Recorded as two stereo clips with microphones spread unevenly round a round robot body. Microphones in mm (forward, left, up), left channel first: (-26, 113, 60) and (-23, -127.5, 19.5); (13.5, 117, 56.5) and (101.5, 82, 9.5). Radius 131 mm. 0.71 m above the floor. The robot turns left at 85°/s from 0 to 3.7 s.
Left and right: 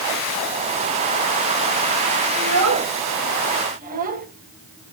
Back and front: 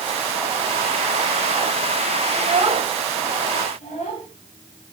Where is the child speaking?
30° right, 2.5 m; by 4.3 s 145° right, 2.5 m.